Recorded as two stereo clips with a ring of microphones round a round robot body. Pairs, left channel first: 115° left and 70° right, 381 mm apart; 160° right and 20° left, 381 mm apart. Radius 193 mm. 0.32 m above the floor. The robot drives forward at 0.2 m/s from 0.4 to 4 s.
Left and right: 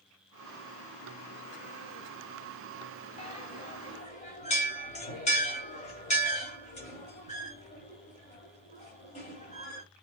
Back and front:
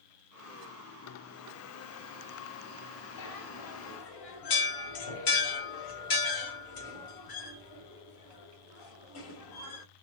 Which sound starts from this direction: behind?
A bell, at 3.2 s.